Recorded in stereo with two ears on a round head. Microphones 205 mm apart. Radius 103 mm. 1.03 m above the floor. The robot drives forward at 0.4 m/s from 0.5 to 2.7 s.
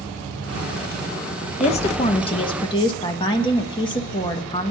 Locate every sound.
1.6 s a woman speaking: 30° left (ahead or behind), 0.9 m; by 4.7 s 20° left (ahead or behind), 1.3 m